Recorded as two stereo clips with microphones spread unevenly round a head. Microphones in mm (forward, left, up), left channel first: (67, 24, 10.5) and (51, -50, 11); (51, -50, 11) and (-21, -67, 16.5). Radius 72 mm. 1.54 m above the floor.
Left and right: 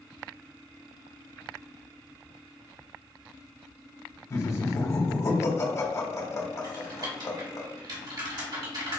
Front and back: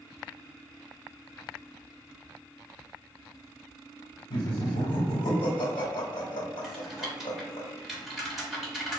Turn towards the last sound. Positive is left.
turn(degrees=-80)